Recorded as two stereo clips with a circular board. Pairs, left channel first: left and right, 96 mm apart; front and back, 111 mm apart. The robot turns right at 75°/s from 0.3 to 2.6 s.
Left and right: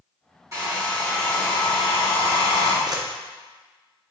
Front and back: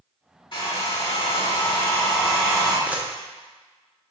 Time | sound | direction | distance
0.5 | a hair dryer | 40° right | 1.5 m
2.9 | a camera shutter | 110° right | 0.5 m